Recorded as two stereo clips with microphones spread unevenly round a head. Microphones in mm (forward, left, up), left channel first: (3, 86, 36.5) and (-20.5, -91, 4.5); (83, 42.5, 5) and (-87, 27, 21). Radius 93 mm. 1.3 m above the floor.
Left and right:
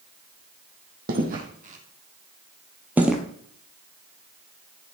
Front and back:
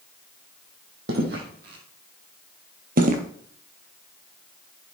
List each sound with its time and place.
1.1 s footsteps: 140° right, 3.5 m; by 3.2 s 165° left, 2 m